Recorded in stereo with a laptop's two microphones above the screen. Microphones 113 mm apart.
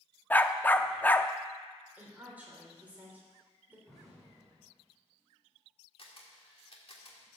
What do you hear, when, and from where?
0.3 s a dog barking: 15° left (ahead or behind), 0.5 m
2.0 s a woman speaking: 15° right (ahead or behind), 3 m
3.9 s an explosion: centre (ahead or behind), 3.5 m
6.0 s a camera shutter: 55° left (ahead or behind), 1.8 m